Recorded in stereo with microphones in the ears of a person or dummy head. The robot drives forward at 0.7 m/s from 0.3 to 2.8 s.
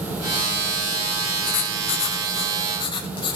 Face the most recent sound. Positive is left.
turn(degrees=30)  # may be behind; listen again after turning